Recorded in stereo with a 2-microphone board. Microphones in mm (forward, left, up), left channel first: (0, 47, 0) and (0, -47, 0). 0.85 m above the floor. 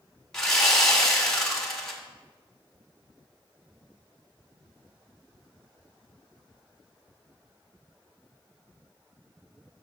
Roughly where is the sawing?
Centre.